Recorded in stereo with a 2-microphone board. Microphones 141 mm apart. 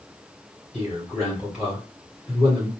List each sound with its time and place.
0.7 s a man speaking: 5° right (ahead or behind), 2.0 m